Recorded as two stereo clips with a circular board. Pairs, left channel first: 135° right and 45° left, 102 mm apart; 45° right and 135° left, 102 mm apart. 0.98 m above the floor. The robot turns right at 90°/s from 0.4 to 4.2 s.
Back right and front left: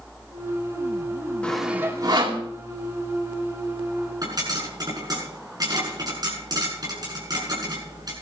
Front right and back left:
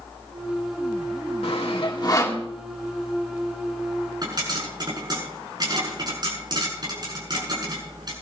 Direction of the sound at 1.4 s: 60° right.